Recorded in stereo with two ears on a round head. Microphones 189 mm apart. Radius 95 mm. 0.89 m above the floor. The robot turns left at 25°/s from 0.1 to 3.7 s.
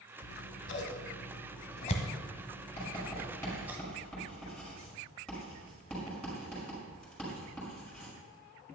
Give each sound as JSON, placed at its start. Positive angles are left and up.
{"t": 0.2, "sound": "scissors", "side_deg": 60, "distance_m": 1.3}
{"t": 2.8, "sound": "writing", "side_deg": 30, "distance_m": 5.5}